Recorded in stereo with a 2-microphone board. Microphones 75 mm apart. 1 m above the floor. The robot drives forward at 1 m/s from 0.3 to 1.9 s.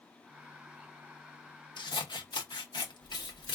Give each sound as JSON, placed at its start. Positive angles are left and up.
{"t": 1.8, "sound": "scissors", "side_deg": 85, "distance_m": 0.8}